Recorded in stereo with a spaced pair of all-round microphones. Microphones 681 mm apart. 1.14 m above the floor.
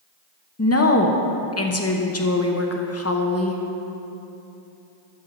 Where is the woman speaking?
20° left (ahead or behind), 0.8 m.